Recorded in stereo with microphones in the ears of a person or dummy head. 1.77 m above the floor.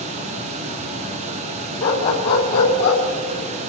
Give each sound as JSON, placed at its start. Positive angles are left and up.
{"t": 0.0, "sound": "a fan", "side_deg": -40, "distance_m": 1.4}
{"t": 1.8, "sound": "a dog barking", "side_deg": 35, "distance_m": 4.5}